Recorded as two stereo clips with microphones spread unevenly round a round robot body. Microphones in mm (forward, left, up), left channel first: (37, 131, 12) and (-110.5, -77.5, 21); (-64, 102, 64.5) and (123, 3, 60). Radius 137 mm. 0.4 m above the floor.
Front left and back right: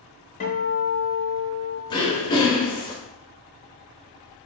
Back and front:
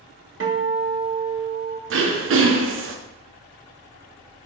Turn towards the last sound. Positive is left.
turn(degrees=-15)